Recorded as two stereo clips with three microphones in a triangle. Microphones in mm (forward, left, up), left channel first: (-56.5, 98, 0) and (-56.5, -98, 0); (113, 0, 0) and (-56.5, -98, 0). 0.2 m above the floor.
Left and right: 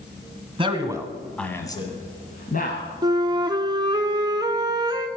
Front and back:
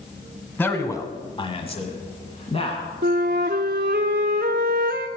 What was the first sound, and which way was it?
A man speaking, 45° right.